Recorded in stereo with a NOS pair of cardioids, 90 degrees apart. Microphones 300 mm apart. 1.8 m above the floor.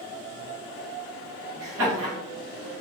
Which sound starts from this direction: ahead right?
Laughter, at 1.6 s.